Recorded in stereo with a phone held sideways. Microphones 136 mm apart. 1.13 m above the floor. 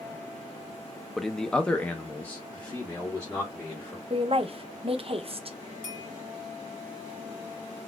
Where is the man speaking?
Centre (ahead or behind), 0.5 m; by 4.0 s 15° left (ahead or behind), 1.5 m.